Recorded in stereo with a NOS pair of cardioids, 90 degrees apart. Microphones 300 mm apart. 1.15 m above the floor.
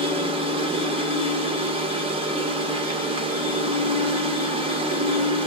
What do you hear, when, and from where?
0.0 s a machine running: 20° right, 0.7 m